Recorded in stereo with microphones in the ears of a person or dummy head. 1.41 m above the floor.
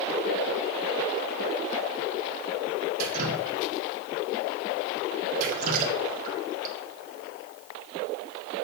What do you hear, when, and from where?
3.0 s dripping: 50° right (ahead or behind), 1.8 m